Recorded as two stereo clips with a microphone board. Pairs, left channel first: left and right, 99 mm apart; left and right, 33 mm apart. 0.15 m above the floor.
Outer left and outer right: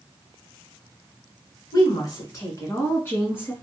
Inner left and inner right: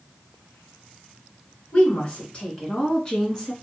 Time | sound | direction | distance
1.7 | a woman speaking | 45° left (ahead or behind) | 1.9 m